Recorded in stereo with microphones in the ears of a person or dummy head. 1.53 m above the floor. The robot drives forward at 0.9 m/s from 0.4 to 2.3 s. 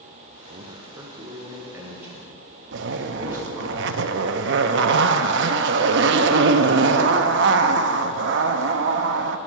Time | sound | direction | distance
0.5 | a man speaking | 30° right (ahead or behind) | 0.8 m
2.7 | a zipper | 70° right (ahead or behind) | 0.6 m